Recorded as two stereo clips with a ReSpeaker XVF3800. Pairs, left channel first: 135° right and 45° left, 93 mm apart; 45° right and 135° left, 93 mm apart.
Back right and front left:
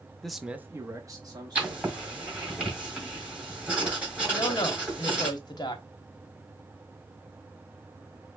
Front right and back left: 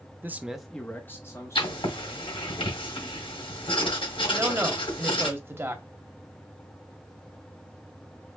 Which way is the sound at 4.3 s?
165° right.